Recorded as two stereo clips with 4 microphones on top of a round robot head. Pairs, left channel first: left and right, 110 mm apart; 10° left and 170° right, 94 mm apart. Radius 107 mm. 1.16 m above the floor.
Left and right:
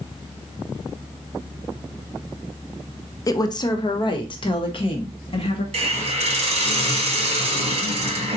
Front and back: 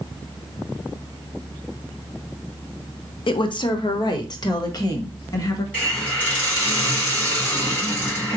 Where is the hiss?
70° right, 1.6 m.